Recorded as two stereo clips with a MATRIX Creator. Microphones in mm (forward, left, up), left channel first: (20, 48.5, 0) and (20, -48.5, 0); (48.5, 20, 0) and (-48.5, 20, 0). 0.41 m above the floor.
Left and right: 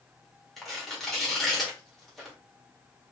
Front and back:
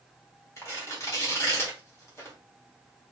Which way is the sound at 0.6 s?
5° left.